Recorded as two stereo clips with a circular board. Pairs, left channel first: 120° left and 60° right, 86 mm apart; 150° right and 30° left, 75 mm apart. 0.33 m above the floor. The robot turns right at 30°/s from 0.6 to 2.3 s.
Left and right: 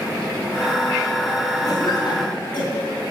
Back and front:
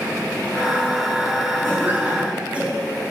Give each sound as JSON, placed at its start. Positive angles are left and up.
{"t": 1.6, "sound": "a cough", "azimuth_deg": 85, "distance_m": 2.5}